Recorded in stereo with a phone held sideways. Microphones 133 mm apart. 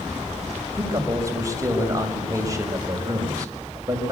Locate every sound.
0.8 s a man speaking: 25° right (ahead or behind), 5 m